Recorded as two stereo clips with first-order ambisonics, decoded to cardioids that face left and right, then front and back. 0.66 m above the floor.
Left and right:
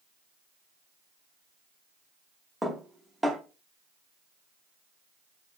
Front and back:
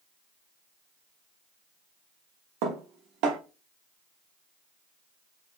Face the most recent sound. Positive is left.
turn(degrees=-175)